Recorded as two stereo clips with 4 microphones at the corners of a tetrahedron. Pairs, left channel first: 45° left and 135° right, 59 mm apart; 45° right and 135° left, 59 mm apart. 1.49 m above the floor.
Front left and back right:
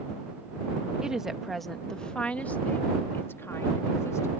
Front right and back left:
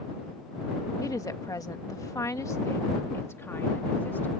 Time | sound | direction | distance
1.0 | a woman speaking | 60° right | ?